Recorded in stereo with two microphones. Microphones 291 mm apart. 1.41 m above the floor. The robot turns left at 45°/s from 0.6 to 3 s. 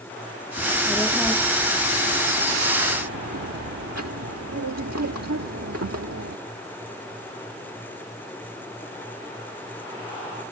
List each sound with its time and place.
0.6 s a child speaking: 30° left; by 6.4 s 80° right